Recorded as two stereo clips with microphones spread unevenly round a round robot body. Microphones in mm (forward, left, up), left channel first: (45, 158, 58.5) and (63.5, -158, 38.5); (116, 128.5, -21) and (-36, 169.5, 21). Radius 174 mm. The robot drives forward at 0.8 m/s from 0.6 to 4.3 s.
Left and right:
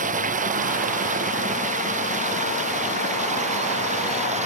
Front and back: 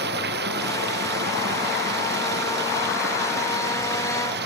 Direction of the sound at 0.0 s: 155° right.